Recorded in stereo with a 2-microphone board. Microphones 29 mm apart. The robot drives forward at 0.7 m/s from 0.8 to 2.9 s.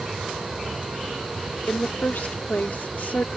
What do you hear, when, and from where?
0.0 s an aircraft: 35° right (ahead or behind)
1.7 s a woman speaking: 65° left (ahead or behind); by 3.3 s 75° left (ahead or behind)